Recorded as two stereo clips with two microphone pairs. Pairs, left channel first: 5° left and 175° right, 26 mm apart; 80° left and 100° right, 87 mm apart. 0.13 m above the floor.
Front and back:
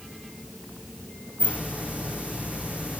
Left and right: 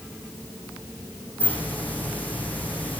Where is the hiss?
155° left, 3 m.